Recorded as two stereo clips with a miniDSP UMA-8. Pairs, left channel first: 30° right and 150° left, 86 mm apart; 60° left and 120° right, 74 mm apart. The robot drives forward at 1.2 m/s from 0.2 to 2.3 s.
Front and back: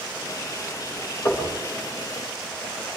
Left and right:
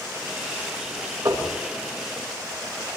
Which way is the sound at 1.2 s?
90° right.